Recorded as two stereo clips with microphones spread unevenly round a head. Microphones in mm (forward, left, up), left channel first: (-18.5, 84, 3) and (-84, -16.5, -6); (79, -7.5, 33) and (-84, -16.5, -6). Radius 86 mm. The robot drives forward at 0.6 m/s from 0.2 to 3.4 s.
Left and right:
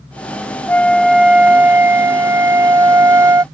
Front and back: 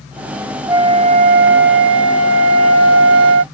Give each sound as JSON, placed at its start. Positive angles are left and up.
{"t": 0.7, "sound": "a flute", "azimuth_deg": 100}